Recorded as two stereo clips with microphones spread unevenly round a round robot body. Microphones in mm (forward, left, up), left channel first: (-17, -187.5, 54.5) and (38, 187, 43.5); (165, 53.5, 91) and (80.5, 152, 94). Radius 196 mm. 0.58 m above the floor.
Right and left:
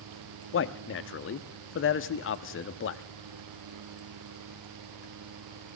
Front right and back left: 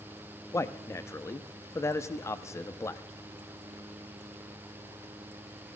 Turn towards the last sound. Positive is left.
turn(degrees=-90)